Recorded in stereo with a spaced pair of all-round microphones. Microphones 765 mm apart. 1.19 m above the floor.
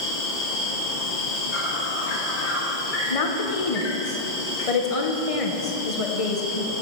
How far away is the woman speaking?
About 0.8 m.